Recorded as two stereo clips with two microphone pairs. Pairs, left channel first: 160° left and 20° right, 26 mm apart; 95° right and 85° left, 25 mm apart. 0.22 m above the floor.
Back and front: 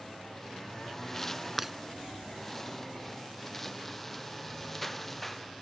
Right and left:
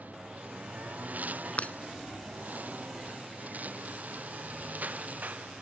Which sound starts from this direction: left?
A lawn mower, at 0.0 s.